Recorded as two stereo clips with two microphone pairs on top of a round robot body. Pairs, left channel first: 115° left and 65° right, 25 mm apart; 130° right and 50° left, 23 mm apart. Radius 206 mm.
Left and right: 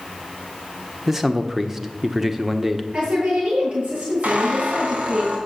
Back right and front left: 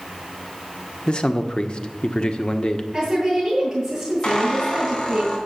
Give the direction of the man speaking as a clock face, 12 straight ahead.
5 o'clock.